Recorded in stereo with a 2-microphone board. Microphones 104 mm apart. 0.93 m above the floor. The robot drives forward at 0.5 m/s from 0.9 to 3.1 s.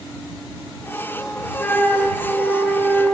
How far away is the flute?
About 0.9 m.